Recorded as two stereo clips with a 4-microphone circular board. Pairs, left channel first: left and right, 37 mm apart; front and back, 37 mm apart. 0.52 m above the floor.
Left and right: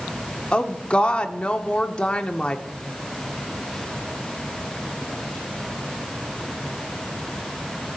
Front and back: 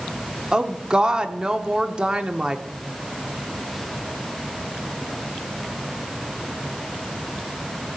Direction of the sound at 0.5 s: 130° left.